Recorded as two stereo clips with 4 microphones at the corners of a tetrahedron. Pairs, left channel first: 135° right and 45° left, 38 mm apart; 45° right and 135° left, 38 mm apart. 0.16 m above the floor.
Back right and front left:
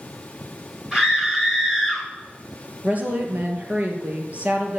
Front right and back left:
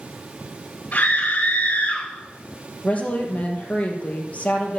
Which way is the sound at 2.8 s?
Straight ahead.